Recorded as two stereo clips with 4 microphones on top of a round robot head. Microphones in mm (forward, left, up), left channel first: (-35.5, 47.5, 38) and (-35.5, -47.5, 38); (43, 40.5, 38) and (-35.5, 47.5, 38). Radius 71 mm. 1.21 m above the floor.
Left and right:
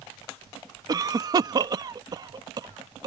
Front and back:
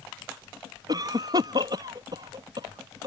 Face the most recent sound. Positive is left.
turn(degrees=-135)